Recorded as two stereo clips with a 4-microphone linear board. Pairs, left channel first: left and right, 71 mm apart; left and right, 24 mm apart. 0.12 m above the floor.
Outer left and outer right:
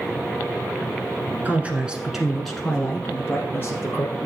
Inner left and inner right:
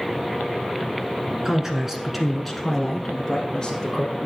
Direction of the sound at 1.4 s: 25° right (ahead or behind).